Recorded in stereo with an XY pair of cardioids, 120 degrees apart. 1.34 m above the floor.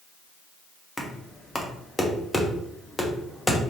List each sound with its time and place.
1.0 s knocking: 15° left, 0.7 m